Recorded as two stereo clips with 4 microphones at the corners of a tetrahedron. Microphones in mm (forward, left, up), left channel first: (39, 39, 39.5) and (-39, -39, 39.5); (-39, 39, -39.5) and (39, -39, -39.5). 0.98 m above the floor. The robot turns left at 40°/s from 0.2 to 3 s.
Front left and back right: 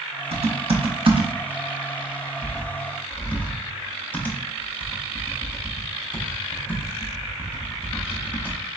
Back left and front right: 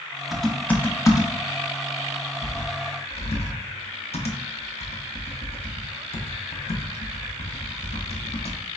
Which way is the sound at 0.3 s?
135° right.